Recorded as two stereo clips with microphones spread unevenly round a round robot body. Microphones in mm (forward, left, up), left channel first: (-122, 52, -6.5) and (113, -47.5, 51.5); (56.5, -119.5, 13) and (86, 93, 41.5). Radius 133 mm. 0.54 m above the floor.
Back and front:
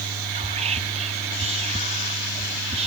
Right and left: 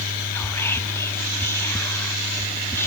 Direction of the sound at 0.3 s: 80° right.